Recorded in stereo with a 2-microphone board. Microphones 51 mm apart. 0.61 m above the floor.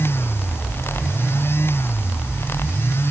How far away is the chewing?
I don't hear chewing.